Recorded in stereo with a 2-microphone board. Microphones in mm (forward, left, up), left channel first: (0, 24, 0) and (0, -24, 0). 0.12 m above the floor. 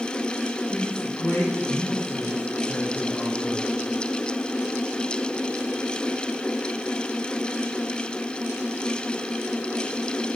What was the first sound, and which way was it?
A man speaking, 40° left (ahead or behind).